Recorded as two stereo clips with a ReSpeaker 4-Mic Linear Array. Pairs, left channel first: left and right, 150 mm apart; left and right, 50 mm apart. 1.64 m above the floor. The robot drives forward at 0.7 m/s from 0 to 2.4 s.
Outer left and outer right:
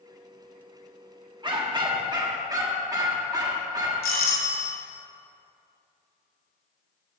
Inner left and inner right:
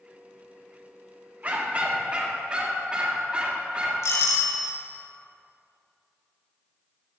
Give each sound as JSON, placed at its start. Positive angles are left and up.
{"t": 1.4, "sound": "a dog barking", "side_deg": -30, "distance_m": 1.3}
{"t": 4.0, "sound": "a doorbell", "side_deg": 85, "distance_m": 1.4}